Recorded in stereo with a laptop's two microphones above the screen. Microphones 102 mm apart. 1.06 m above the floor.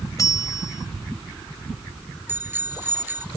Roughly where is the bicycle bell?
Right.